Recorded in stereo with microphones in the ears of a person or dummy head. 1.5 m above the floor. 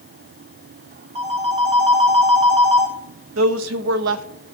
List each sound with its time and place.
1.1 s a phone ringing: 35° right (ahead or behind), 1.3 m
3.4 s a woman speaking: 80° right, 0.7 m